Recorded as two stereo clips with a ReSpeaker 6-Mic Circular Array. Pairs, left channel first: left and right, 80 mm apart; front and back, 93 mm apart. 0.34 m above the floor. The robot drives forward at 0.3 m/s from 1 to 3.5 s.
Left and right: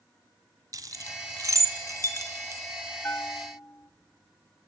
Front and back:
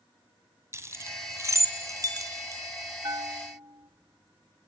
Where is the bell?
145° left, 0.7 m; by 3.9 s 150° left, 0.9 m.